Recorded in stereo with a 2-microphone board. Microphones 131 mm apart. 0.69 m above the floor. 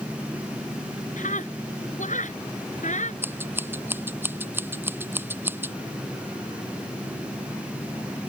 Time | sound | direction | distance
1.2 | a scream | 75° left (ahead or behind) | ?
3.2 | scissors | 15° right (ahead or behind) | ?